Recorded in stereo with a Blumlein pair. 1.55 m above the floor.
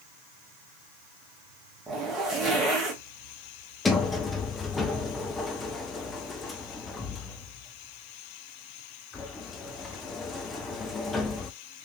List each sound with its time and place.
1.9 s a zipper: 15° right, 1.6 m
3.9 s a sliding door: 15° left, 0.7 m